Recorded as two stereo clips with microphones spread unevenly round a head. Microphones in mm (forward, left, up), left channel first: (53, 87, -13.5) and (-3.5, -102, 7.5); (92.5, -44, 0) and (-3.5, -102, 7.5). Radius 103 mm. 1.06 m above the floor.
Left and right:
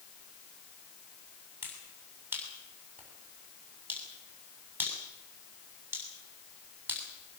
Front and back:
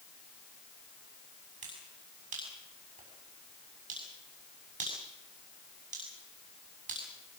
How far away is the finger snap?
About 7 m.